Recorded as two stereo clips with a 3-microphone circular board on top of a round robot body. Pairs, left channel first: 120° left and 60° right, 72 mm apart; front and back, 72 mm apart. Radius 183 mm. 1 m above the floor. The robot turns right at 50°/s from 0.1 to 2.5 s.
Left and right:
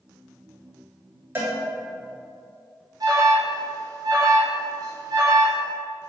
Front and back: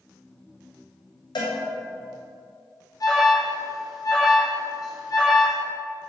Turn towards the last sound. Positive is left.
turn(degrees=-30)